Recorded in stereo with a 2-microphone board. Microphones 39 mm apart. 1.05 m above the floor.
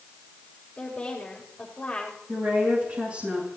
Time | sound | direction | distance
0.8 | a woman speaking | 25° left (ahead or behind) | 5.5 m
2.3 | a woman speaking | 35° right (ahead or behind) | 9.5 m